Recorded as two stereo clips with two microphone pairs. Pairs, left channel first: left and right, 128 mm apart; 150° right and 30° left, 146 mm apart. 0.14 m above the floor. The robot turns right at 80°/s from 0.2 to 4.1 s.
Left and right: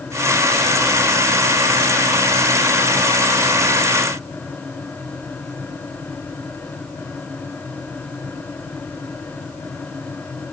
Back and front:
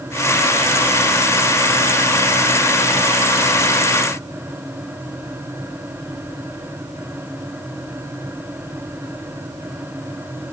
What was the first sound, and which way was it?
Only background noise.